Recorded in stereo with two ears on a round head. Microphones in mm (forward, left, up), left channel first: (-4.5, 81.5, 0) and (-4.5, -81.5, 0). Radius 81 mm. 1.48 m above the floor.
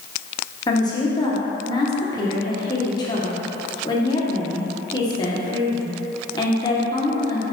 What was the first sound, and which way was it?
A woman speaking, 25° left (ahead or behind).